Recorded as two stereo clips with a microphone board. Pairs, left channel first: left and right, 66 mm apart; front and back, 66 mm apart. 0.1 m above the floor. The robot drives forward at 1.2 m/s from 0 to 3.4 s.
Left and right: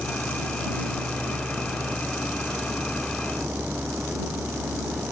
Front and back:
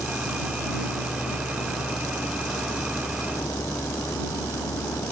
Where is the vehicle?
10° right; by 5.1 s 20° right.